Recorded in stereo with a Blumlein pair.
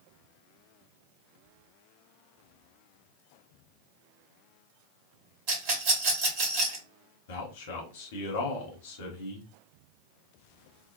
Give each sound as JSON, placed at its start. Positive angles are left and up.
{"t": 5.5, "sound": "a rattle", "azimuth_deg": -45, "distance_m": 1.1}
{"t": 7.3, "sound": "a man speaking", "azimuth_deg": 55, "distance_m": 1.0}